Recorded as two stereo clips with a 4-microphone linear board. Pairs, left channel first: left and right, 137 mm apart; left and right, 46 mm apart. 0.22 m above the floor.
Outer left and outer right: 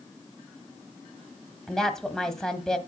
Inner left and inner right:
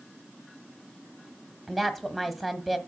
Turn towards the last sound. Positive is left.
turn(degrees=5)  # may be behind; listen again after turning